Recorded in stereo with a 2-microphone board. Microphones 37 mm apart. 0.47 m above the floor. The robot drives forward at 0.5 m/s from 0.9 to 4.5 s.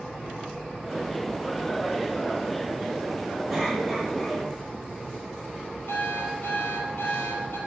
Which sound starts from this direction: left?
An alarm clock, at 5.9 s.